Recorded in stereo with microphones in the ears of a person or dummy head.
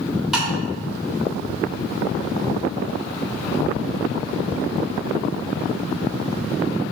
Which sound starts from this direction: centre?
Tapping, at 0.3 s.